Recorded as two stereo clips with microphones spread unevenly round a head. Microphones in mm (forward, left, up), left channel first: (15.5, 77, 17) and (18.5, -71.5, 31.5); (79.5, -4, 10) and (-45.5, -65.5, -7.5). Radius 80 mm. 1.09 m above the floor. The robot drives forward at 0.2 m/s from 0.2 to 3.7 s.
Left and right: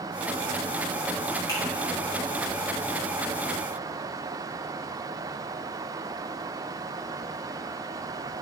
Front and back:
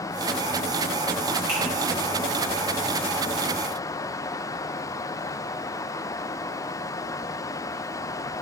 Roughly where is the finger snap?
Behind.